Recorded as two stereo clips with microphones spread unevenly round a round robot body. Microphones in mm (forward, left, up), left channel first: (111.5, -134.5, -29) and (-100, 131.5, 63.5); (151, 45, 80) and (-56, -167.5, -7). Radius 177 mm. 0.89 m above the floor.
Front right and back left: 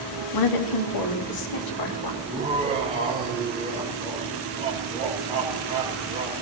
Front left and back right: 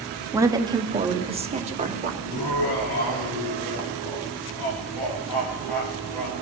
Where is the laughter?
50° left, 3.5 m.